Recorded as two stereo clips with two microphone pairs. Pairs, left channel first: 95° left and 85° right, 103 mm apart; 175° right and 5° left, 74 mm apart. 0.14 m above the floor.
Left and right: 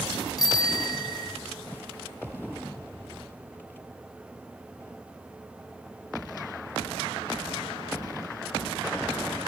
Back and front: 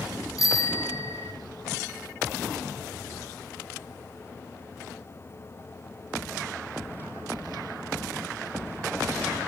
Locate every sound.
0.4 s a bicycle bell: 145° left, 4.5 m